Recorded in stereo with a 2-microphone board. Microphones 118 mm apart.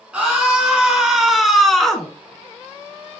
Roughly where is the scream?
Centre.